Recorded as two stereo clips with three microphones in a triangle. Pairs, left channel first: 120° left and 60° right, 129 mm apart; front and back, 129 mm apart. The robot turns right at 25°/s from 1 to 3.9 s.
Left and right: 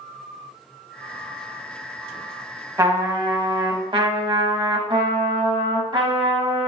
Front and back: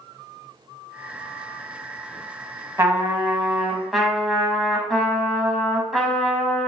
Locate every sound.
2.8 s a trumpet: 120° right, 0.9 m; by 6.7 s 90° right, 0.9 m